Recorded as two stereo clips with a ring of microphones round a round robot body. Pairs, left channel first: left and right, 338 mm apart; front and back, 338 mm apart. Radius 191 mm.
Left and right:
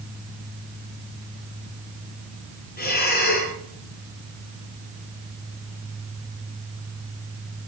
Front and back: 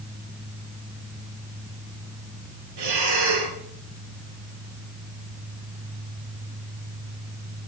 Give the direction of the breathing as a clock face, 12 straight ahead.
7 o'clock.